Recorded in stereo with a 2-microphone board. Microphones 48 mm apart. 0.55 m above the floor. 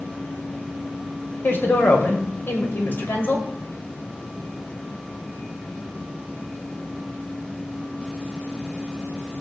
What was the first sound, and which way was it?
A woman speaking, 45° left (ahead or behind).